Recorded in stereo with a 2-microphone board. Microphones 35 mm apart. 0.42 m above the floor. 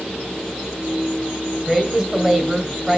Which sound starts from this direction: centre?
A woman speaking, at 1.7 s.